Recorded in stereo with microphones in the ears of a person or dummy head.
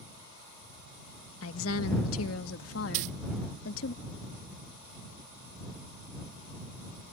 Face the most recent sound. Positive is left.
turn(degrees=-50)  # may be behind; listen again after turning